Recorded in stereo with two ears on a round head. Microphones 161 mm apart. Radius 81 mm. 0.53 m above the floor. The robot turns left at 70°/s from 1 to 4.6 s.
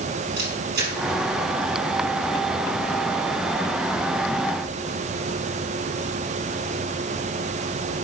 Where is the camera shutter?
75° right (ahead or behind), 3.5 m.